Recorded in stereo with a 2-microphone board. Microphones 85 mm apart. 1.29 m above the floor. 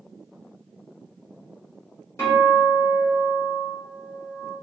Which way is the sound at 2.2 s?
30° left (ahead or behind).